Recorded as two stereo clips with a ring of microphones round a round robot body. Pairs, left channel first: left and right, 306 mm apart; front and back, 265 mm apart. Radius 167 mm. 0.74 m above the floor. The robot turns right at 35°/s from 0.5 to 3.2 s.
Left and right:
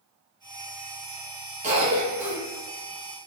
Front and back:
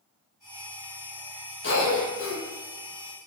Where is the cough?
30° right, 1.0 m; by 2.4 s 5° right, 1.0 m.